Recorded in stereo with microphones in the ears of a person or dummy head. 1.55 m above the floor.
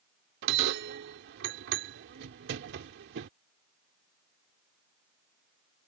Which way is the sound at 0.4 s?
65° right (ahead or behind).